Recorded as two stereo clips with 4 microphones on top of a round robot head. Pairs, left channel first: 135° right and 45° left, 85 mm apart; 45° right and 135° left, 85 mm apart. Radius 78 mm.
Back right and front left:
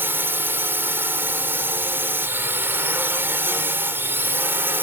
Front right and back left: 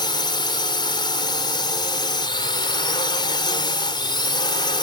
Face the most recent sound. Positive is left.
turn(degrees=-20)